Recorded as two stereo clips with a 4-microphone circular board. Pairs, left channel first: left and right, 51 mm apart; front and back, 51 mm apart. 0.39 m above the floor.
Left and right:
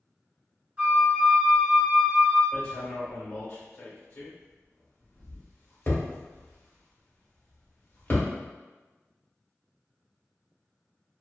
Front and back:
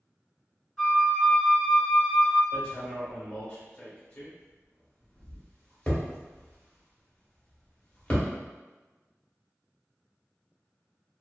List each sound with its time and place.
0.8 s a flute: 85° right, 1.5 m
2.5 s hammering: 60° left, 1.0 m